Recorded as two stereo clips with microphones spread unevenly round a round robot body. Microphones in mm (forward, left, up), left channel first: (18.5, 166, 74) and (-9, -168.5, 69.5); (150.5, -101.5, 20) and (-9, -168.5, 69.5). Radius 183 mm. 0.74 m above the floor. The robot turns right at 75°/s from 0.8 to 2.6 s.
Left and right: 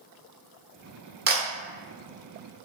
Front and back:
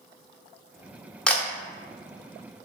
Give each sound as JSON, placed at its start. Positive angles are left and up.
{"t": 1.3, "sound": "a camera shutter", "azimuth_deg": -45, "distance_m": 0.8}